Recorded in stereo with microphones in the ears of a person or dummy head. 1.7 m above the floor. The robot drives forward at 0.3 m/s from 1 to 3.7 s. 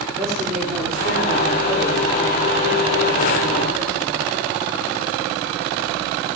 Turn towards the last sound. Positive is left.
turn(degrees=0)  # may be behind; listen again after turning